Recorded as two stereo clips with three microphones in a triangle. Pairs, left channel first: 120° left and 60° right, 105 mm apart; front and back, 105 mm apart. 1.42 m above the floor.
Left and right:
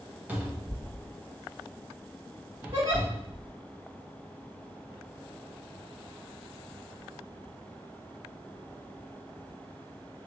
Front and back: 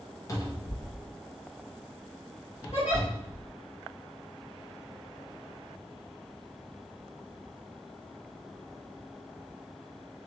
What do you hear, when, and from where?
0.3 s a cupboard door: straight ahead, 0.6 m
2.7 s a giggle: 25° right, 1.5 m